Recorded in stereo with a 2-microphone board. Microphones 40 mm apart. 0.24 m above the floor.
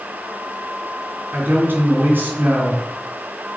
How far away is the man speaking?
About 2.5 m.